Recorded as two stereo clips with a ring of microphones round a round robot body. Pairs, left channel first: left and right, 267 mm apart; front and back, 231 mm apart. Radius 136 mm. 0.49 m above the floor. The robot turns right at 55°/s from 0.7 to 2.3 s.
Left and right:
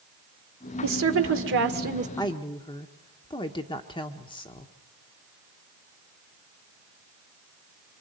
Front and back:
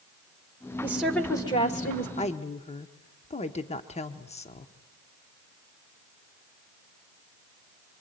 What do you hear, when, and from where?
0.8 s a woman speaking: 105° right, 1.6 m; by 2.1 s 35° right, 1.6 m
2.2 s a woman speaking: 25° left, 1.0 m; by 4.7 s 35° left, 1.0 m